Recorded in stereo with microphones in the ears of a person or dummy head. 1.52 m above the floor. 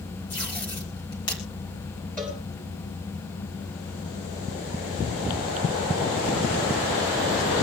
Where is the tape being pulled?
25° left (ahead or behind), 2.5 m.